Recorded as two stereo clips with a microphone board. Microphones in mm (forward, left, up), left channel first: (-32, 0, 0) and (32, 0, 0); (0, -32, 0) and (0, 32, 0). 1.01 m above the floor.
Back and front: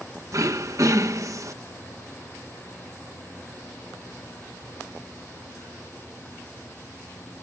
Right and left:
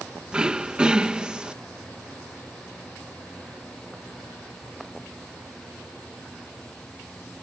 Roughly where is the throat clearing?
Ahead.